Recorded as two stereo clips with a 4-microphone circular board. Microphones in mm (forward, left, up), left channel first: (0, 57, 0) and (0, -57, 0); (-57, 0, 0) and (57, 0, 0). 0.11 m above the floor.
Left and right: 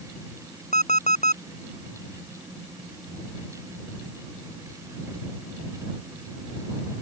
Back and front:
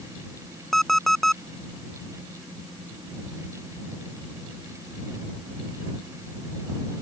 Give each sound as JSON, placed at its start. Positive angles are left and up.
{"t": 0.7, "sound": "an alarm clock", "azimuth_deg": 95}